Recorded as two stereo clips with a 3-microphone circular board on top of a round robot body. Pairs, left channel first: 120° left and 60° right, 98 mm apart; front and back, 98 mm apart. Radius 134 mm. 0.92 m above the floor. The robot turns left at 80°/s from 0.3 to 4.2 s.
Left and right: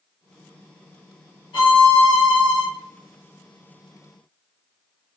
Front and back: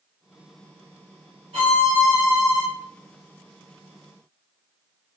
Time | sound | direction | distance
1.5 | a violin | 160° left | 1.3 m